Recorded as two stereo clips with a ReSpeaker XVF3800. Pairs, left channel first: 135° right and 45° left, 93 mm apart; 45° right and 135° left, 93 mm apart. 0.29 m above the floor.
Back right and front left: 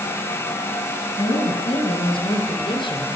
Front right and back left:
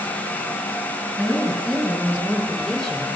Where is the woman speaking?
135° right, 4 m; by 3.1 s 130° right, 3 m.